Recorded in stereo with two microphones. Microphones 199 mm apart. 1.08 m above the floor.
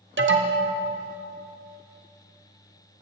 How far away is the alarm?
About 0.6 m.